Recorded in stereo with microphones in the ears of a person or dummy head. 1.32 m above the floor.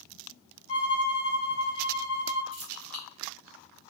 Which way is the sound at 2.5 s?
25° right (ahead or behind).